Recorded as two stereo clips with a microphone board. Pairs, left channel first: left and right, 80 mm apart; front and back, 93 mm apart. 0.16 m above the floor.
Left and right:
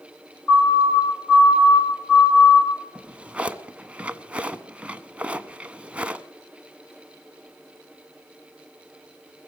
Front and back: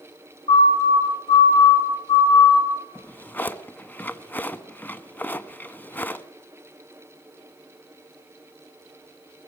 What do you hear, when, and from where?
0.5 s a siren: 10° left, 9.5 m
3.0 s a drawer: 35° right, 0.7 m